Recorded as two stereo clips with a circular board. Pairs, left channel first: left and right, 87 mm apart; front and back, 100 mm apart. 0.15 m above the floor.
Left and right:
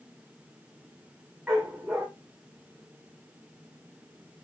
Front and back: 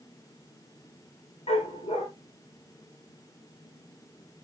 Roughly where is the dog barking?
Ahead.